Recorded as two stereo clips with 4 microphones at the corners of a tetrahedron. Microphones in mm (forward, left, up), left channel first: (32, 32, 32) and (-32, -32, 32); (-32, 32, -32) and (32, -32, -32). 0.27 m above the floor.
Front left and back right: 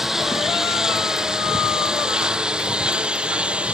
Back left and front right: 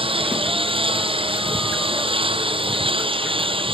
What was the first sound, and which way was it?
A lawn mower, 50° right.